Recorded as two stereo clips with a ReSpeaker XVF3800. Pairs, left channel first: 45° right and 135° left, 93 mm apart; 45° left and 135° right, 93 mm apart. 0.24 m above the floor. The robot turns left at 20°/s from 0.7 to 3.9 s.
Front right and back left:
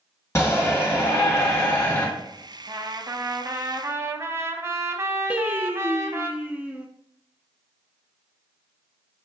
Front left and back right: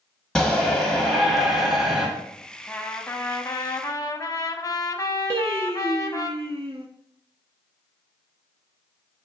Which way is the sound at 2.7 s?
110° left.